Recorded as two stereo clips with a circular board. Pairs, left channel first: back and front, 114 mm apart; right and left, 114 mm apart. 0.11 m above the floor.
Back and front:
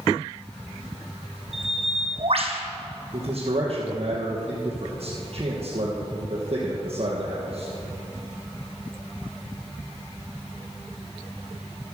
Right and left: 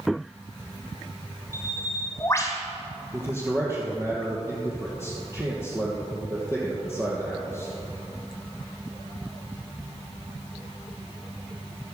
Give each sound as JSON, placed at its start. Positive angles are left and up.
{"t": 1.5, "sound": "a bird", "azimuth_deg": -25, "distance_m": 2.0}
{"t": 3.1, "sound": "a man speaking", "azimuth_deg": 25, "distance_m": 3.0}